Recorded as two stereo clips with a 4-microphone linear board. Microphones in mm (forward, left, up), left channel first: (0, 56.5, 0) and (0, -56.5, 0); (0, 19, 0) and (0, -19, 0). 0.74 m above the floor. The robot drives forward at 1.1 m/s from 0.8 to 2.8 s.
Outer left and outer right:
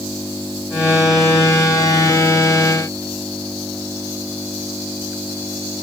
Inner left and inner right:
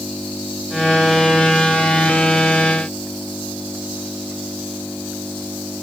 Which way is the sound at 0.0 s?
15° right (ahead or behind).